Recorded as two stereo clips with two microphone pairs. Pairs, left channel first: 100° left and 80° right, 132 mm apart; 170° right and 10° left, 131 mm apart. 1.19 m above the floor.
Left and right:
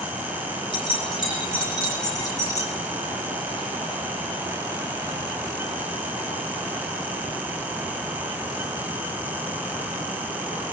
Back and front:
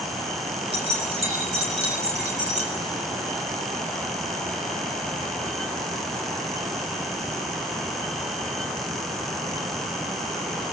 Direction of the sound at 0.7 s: 50° left.